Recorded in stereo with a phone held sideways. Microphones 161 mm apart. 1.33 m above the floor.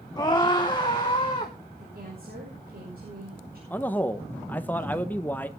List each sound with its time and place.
0.2 s a scream: 25° left (ahead or behind), 1.2 m; by 1.5 s 35° left (ahead or behind), 2 m
1.8 s a woman speaking: 65° right (ahead or behind), 5.5 m
3.7 s a man speaking: 10° left (ahead or behind), 0.9 m